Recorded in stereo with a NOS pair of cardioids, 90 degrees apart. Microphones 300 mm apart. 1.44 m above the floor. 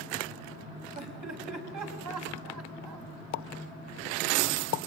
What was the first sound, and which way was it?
Laughter, 65° right.